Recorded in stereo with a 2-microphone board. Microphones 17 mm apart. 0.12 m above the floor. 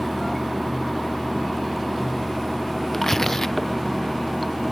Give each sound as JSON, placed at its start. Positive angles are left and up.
{"t": 0.0, "sound": "running water", "side_deg": 5}
{"t": 2.9, "sound": "tearing paper", "side_deg": 25}